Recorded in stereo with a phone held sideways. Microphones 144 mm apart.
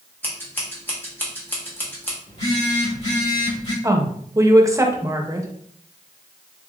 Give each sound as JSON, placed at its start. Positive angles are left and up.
{"t": 0.2, "sound": "scissors", "side_deg": 15, "distance_m": 1.2}
{"t": 2.3, "sound": "a phone buzzing", "side_deg": 40, "distance_m": 2.0}
{"t": 3.8, "sound": "a woman speaking", "side_deg": -20, "distance_m": 0.7}